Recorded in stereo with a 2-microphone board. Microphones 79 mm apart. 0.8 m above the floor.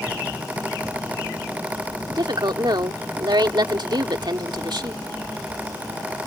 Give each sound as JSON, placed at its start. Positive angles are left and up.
{"t": 2.1, "sound": "a woman speaking", "side_deg": -70}